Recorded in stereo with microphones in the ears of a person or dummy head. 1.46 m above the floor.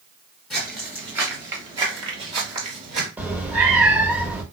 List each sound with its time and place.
0.5 s footsteps: centre (ahead or behind), 1.5 m; by 3.1 s 40° right (ahead or behind), 1.9 m
3.2 s a cat meowing: 5° right (ahead or behind), 0.7 m